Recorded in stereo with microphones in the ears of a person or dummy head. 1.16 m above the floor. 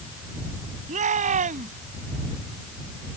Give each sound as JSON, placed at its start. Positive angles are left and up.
{"t": 0.9, "sound": "a shout", "side_deg": -45}